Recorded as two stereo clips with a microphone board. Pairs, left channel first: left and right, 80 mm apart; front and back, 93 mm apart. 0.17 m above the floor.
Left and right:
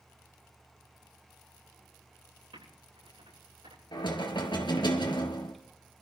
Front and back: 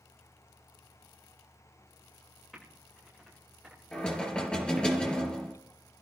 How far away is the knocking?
About 2.5 m.